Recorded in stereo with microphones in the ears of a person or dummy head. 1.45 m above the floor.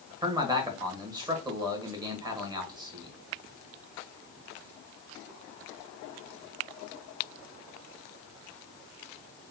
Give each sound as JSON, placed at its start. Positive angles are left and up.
{"t": 0.2, "sound": "a man speaking", "side_deg": -20, "distance_m": 1.1}